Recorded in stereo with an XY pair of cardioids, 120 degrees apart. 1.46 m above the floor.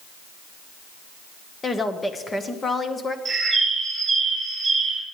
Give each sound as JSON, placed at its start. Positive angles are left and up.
{"t": 1.6, "sound": "a woman speaking", "azimuth_deg": 20, "distance_m": 1.6}
{"t": 3.2, "sound": "a bird", "azimuth_deg": -15, "distance_m": 7.0}